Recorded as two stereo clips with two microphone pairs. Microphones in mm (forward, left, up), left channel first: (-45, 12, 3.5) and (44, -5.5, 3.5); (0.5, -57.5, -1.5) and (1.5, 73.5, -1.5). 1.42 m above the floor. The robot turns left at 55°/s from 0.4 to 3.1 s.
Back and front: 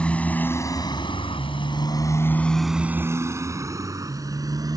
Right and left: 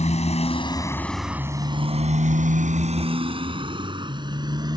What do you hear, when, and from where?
0.0 s a motorcycle: 115° right; by 4.8 s 30° left